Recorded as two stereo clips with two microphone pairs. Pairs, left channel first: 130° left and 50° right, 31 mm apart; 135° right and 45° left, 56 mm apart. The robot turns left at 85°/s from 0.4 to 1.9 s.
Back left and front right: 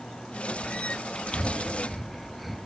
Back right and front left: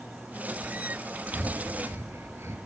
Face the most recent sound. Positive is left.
turn(degrees=40)